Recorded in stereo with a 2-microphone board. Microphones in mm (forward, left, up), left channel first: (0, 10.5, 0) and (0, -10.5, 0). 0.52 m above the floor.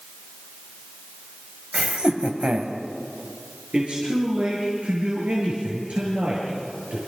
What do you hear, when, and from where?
1.7 s laughter: 70° right (ahead or behind), 2.5 m; by 2.8 s 75° right (ahead or behind), 2.5 m
3.7 s a man speaking: 70° right (ahead or behind), 8 m